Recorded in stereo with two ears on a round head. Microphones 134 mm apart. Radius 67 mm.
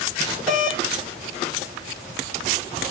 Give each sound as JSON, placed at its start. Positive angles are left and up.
{"t": 0.5, "sound": "a doorbell", "side_deg": 0, "distance_m": 2.5}